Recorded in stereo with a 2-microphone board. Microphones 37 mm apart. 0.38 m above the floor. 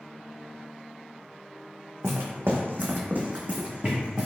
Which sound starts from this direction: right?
Footsteps, at 2.0 s.